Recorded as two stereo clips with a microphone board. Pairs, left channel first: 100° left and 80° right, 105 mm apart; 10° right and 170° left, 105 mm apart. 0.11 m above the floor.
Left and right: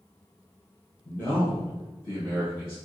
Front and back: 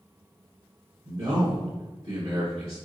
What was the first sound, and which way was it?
A man speaking, 165° left.